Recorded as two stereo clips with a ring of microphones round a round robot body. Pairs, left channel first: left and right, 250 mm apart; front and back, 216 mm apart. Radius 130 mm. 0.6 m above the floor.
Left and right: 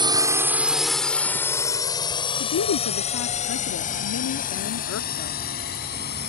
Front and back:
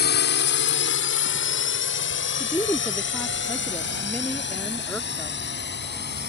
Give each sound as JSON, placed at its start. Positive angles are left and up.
{"t": 0.0, "sound": "a drone", "azimuth_deg": -20}
{"t": 2.4, "sound": "a woman speaking", "azimuth_deg": 80}